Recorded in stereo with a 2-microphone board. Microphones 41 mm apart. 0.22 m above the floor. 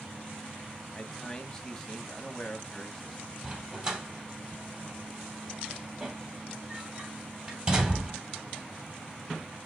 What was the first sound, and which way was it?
A man speaking, 15° left (ahead or behind).